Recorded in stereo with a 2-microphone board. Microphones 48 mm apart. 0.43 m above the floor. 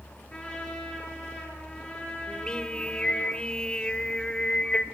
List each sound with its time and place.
0.3 s a trumpet: 25° left (ahead or behind), 7.5 m
2.3 s singing: 20° left (ahead or behind), 1.3 m